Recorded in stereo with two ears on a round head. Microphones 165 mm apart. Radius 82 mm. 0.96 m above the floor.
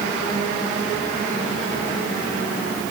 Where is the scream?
No scream in this recording.